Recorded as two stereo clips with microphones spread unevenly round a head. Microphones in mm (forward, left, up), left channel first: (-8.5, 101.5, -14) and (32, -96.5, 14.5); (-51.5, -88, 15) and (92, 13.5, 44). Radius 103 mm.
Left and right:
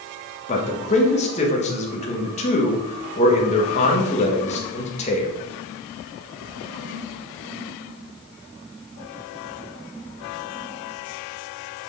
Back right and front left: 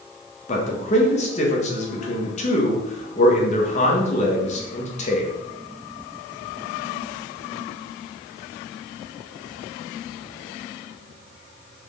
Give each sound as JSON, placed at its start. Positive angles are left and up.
{"t": 0.5, "sound": "a man speaking", "azimuth_deg": 160, "distance_m": 1.7}